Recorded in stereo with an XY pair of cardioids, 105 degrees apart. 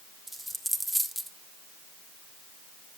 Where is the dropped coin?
5° right, 1.3 m.